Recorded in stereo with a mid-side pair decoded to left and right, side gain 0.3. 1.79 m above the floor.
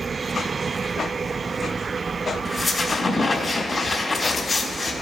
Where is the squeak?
40° left, 2.5 m.